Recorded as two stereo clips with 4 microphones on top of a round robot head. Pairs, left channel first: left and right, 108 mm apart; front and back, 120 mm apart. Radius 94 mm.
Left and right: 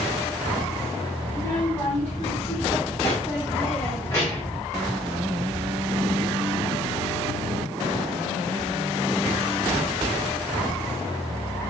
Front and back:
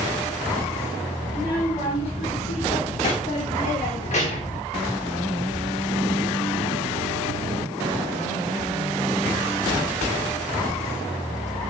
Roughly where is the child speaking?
Ahead left.